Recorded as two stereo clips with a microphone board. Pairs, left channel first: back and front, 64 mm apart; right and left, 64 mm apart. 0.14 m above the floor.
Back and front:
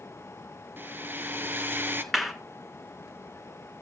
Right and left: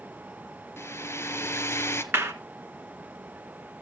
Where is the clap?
90° left, 1.2 m.